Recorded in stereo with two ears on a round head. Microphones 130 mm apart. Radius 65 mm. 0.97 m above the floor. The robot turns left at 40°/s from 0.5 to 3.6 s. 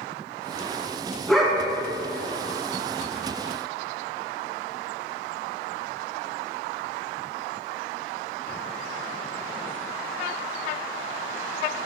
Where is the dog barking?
5° left (ahead or behind), 3.5 m; by 1.6 s 10° right (ahead or behind), 3.5 m.